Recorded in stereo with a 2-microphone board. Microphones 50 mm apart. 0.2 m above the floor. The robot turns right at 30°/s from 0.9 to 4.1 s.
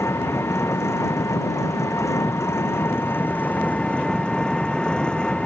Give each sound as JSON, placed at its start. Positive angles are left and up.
{"t": 0.0, "sound": "an engine running", "azimuth_deg": 65}